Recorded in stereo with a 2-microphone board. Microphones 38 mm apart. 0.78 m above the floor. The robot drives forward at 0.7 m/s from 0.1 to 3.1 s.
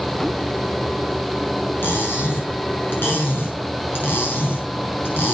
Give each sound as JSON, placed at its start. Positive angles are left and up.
{"t": 1.8, "sound": "cutlery clinking", "side_deg": 75, "distance_m": 6.5}